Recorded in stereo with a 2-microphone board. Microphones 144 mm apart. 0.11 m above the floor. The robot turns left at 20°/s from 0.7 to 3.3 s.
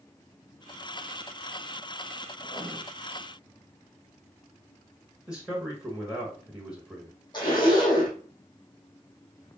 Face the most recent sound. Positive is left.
turn(degrees=30)  # may be behind; listen again after turning